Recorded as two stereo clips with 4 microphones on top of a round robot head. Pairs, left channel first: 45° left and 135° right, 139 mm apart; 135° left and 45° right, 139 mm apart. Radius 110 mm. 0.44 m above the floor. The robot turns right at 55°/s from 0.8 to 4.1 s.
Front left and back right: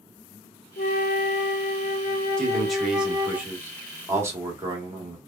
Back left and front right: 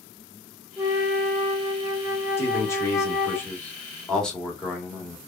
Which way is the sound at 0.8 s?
30° left.